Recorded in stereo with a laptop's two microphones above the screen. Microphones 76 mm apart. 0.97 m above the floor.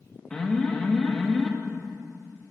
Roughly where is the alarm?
Centre.